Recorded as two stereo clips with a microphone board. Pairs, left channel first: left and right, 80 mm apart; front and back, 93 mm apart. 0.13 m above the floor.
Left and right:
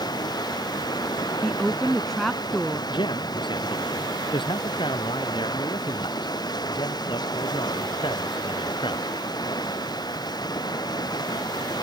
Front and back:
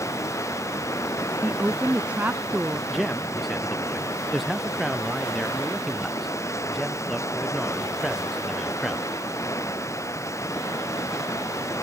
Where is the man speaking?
90° left.